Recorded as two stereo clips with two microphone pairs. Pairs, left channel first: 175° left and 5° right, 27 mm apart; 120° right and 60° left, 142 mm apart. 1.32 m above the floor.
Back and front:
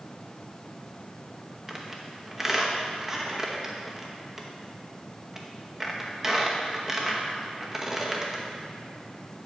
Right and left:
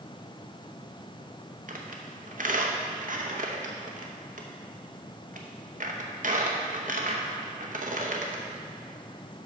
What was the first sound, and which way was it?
A squeak, 65° left.